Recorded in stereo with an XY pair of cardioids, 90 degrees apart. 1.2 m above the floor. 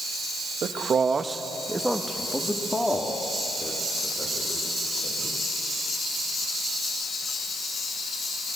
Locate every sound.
0.6 s a man speaking: 65° right, 1.6 m; by 5.4 s 40° left, 5.5 m